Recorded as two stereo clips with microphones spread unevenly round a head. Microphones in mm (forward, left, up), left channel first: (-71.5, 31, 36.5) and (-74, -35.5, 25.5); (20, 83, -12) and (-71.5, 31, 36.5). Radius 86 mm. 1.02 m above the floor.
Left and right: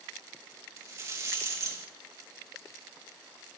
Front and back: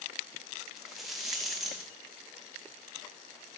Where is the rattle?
50° right, 0.7 m.